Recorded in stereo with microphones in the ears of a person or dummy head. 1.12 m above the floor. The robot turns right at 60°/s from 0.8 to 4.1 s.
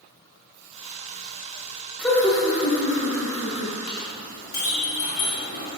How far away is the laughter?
About 1.1 m.